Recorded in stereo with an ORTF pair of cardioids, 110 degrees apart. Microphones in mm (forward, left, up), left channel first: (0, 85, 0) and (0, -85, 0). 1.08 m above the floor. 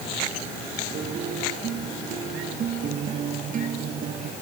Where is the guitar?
50° right.